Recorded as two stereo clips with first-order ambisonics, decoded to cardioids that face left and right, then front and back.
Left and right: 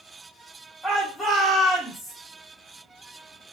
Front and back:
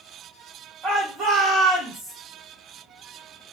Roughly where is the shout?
Behind.